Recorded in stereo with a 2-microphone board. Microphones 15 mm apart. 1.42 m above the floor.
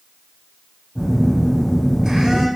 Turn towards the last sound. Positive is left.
turn(degrees=-80)